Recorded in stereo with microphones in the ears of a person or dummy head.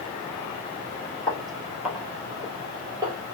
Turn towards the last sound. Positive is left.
turn(degrees=-25)  # may be behind; listen again after turning